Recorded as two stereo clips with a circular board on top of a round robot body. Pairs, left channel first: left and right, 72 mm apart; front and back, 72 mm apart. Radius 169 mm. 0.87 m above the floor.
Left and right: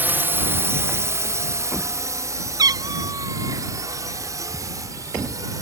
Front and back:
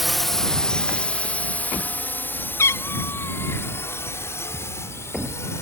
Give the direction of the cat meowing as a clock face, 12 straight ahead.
2 o'clock.